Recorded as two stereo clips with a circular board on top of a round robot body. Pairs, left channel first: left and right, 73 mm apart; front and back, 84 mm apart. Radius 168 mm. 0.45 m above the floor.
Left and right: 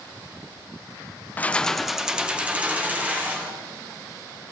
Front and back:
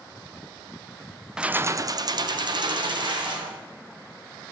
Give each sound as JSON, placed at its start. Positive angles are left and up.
{"t": 1.4, "sound": "keys jangling", "azimuth_deg": 110, "distance_m": 0.7}